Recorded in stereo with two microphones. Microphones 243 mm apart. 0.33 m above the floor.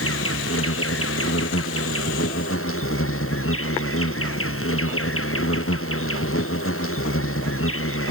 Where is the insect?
65° left (ahead or behind).